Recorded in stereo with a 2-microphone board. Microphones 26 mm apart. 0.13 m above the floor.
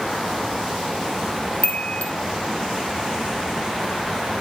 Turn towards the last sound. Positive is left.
turn(degrees=60)  # may be behind; listen again after turning